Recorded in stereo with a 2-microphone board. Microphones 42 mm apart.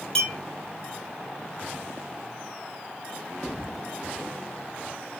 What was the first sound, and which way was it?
A clink, 15° left (ahead or behind).